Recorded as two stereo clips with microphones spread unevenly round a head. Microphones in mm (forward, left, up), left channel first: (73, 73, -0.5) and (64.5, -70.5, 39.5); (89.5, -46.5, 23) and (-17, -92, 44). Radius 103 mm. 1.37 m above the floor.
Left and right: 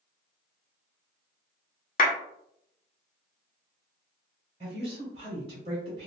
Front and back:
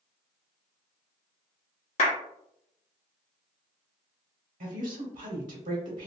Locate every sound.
2.0 s a clap: 65° left, 0.8 m
4.6 s a woman speaking: 160° right, 0.9 m